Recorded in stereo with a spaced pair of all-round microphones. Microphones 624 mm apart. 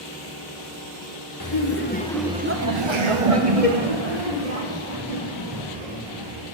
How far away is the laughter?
About 1.5 m.